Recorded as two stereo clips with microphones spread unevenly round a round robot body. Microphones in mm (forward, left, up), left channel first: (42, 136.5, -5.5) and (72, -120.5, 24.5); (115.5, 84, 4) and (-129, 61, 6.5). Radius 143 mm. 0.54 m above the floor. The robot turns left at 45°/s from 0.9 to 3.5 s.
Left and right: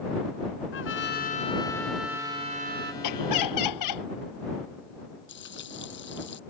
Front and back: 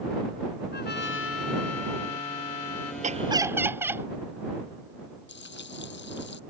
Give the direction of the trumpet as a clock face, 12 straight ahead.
10 o'clock.